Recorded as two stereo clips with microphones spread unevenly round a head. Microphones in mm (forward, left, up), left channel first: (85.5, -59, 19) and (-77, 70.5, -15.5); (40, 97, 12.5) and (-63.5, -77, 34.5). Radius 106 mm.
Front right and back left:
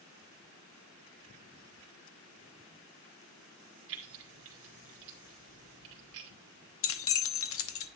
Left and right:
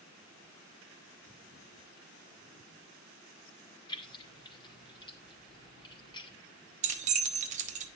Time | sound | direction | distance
3.9 | keys jangling | 125° left | 2.5 m
6.8 | keys jangling | 65° right | 1.2 m